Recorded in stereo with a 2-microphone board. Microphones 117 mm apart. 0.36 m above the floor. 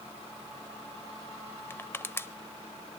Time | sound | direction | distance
1.7 | crushing | 20° left (ahead or behind) | 0.5 m